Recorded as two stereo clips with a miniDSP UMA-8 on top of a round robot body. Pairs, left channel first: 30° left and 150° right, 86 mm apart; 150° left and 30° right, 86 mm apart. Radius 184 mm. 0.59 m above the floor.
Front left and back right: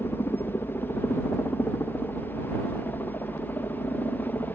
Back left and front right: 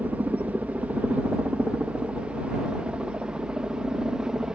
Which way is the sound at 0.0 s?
15° left.